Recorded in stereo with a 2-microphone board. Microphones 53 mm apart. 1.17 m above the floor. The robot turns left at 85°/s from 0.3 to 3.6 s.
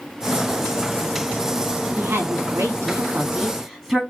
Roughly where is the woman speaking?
Ahead right.